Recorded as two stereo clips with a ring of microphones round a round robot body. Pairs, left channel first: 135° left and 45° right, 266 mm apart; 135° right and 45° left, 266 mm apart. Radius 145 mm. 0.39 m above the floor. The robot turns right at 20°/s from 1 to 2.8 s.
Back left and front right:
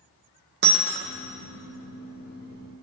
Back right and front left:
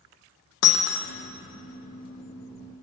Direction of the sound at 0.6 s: 100° right.